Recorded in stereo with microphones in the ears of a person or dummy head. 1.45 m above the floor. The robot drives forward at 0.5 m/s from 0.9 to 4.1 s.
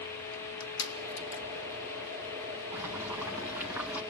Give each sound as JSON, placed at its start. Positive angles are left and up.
{"t": 0.3, "sound": "crushing", "side_deg": 80, "distance_m": 2.0}
{"t": 2.7, "sound": "boiling", "side_deg": -10, "distance_m": 2.0}